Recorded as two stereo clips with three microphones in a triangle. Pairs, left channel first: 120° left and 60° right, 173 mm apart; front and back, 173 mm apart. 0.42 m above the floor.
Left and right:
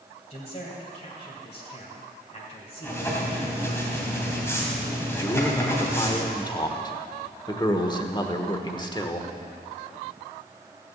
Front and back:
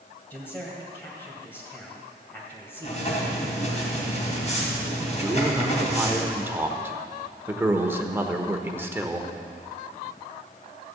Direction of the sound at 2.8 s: 45° left.